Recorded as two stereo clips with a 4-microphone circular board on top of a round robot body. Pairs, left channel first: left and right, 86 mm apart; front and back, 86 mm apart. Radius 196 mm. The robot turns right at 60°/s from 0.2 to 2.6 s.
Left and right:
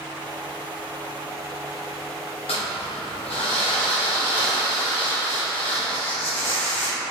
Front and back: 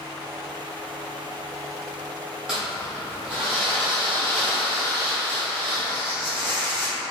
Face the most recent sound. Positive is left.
turn(degrees=100)